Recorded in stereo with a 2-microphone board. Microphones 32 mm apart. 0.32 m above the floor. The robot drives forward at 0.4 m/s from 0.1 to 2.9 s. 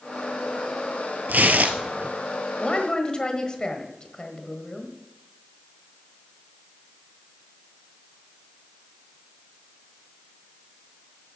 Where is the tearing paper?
85° right, 1.0 m; by 2.1 s 65° right (ahead or behind), 1.1 m.